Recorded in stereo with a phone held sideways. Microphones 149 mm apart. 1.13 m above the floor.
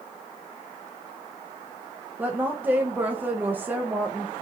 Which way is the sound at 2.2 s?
15° right (ahead or behind).